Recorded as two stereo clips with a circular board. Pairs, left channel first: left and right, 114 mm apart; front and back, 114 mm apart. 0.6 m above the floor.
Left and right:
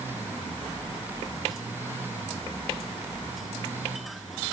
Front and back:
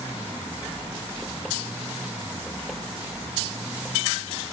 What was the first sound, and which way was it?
Only background noise.